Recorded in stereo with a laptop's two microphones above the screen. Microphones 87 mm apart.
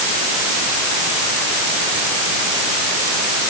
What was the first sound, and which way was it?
Only background noise.